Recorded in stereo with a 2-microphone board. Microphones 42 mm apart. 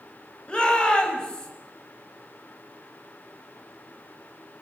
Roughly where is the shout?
Left.